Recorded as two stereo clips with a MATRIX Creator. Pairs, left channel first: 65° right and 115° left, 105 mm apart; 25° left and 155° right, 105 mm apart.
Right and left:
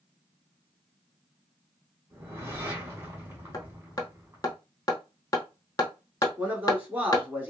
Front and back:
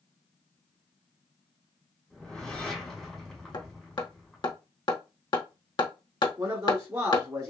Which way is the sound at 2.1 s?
100° left.